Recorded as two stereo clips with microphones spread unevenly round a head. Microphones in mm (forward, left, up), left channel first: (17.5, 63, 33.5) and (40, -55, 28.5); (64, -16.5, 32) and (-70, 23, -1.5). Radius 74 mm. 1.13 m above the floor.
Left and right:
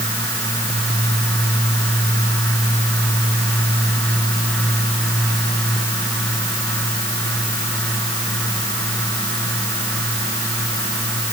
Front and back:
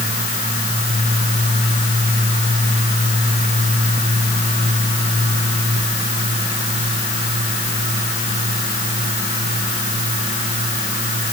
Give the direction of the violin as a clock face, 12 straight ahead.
I don't hear a violin.